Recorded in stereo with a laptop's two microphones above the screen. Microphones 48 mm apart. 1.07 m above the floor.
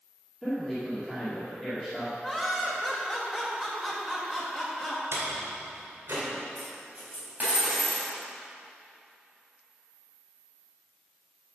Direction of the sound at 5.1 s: 80° right.